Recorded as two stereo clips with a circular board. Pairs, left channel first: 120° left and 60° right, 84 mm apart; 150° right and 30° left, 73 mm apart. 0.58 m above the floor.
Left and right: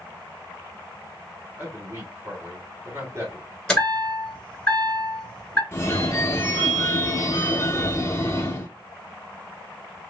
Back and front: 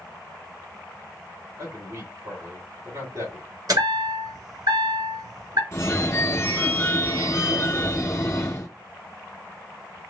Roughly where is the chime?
Ahead left.